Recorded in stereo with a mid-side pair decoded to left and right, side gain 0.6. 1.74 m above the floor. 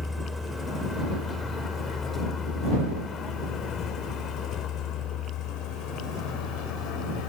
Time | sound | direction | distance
0.0 | a vehicle | 15° left | ?